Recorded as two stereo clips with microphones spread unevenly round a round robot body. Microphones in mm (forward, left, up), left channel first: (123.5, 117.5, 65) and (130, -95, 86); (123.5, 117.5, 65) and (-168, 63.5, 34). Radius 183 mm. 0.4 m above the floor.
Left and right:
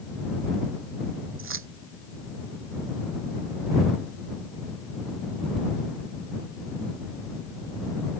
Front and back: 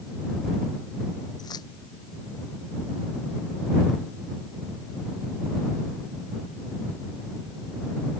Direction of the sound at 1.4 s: 70° right.